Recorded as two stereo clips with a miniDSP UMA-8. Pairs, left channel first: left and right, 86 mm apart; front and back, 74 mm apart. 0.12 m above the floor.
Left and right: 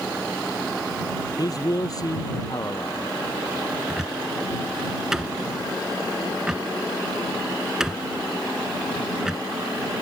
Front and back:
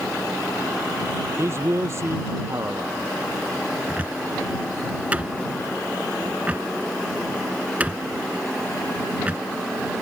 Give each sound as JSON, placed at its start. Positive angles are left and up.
{"t": 1.4, "sound": "a man speaking", "azimuth_deg": 130}
{"t": 3.9, "sound": "a cupboard door", "azimuth_deg": -160}